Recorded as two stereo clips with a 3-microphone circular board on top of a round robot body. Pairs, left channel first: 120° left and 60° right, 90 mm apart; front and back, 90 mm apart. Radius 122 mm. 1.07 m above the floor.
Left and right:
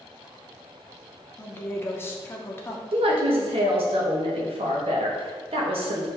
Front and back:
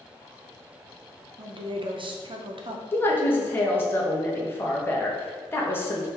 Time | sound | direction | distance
1.4 | a woman speaking | straight behind | 0.8 m
2.9 | a woman speaking | 65° right | 1.1 m